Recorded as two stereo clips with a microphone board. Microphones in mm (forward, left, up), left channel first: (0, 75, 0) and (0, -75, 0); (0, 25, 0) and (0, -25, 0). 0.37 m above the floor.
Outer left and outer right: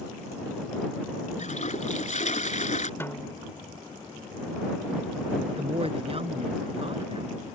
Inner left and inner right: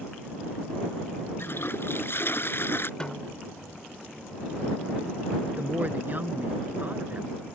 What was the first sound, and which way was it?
A toilet flushing, 55° left (ahead or behind).